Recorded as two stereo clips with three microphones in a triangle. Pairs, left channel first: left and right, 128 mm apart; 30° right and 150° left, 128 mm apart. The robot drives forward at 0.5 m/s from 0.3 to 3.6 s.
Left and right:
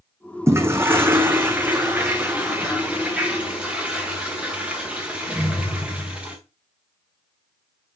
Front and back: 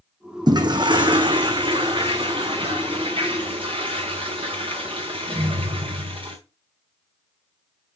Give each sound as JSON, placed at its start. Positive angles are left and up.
{"t": 0.5, "sound": "a toilet flushing", "azimuth_deg": -155, "distance_m": 1.1}